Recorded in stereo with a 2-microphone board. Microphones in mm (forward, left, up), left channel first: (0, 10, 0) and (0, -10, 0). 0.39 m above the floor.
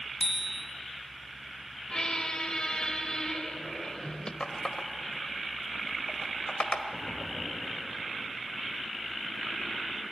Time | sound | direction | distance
0.2 | a bicycle bell | centre (ahead or behind) | 3 m
1.9 | a squeak | 45° left (ahead or behind) | 1.0 m
4.4 | a running tap | 55° left (ahead or behind) | 1.2 m
6.9 | knocking | 30° left (ahead or behind) | 8.5 m